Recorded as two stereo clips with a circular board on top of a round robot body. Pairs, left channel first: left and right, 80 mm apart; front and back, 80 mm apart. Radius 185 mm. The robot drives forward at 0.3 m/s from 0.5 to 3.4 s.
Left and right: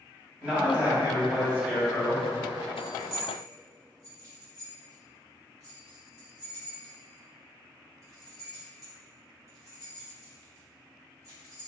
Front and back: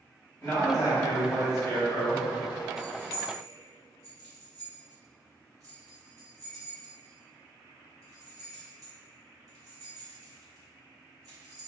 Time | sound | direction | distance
0.4 | a man speaking | 20° right | 1.6 m
2.8 | keys jangling | 130° right | 1.4 m